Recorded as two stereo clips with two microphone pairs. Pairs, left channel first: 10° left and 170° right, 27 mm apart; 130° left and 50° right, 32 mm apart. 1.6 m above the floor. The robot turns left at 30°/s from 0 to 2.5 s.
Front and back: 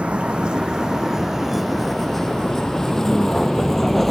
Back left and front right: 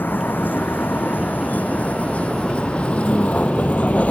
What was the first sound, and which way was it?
A vehicle, 145° left.